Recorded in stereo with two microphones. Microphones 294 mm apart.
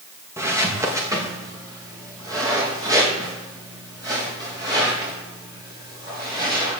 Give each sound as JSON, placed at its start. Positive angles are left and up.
{"t": 0.4, "sound": "footsteps", "side_deg": -10, "distance_m": 3.0}